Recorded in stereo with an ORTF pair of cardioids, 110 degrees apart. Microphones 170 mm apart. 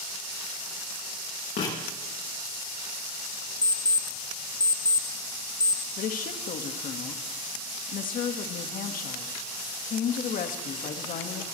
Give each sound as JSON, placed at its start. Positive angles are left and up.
{"t": 1.6, "sound": "writing", "azimuth_deg": 55, "distance_m": 8.0}
{"t": 3.6, "sound": "an alarm clock", "azimuth_deg": 20, "distance_m": 0.9}
{"t": 6.0, "sound": "a woman speaking", "azimuth_deg": 55, "distance_m": 1.9}